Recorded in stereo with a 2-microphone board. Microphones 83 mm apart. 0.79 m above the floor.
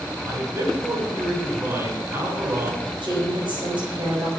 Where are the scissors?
I don't hear scissors.